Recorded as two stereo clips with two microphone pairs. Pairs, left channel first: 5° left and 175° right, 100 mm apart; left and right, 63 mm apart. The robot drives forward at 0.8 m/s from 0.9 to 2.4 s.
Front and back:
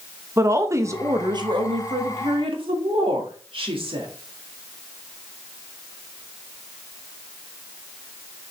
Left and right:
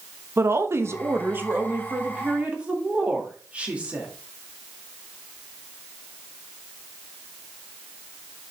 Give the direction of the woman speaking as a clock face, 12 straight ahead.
4 o'clock.